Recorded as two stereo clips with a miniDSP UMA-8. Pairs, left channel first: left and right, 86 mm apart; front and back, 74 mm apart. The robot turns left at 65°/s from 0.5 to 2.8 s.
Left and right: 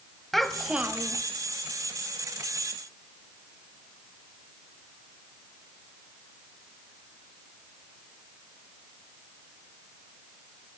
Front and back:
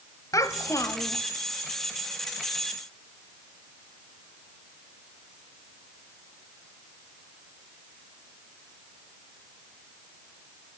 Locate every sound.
0.3 s a child speaking: 5° left, 1.5 m; by 1.2 s 45° right, 1.5 m